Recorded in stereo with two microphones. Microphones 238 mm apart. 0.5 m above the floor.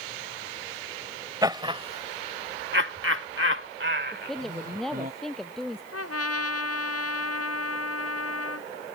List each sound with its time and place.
1.4 s laughter: 15° right (ahead or behind); by 5.1 s 40° right (ahead or behind)
4.1 s a woman speaking: centre (ahead or behind)
5.9 s a trumpet: 80° left